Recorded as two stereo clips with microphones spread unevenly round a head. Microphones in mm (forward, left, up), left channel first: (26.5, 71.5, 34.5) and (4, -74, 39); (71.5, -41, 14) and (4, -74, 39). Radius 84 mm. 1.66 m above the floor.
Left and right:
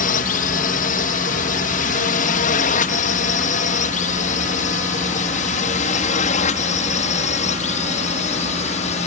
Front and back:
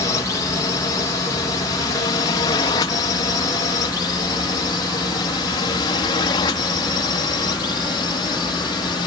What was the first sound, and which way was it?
A drone, 60° left.